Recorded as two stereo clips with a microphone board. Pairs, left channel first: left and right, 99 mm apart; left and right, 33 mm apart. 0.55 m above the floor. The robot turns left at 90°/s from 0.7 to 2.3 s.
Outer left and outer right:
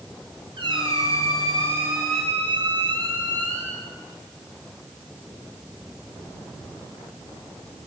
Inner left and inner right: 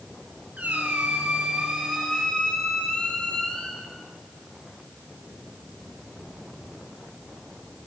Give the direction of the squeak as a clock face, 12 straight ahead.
2 o'clock.